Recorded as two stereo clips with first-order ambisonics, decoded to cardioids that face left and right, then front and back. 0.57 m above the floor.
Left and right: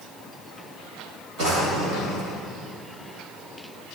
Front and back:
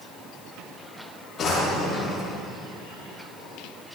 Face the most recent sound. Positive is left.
turn(degrees=-60)